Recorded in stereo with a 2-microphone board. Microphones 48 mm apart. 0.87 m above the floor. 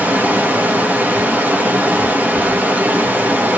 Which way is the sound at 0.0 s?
35° right (ahead or behind).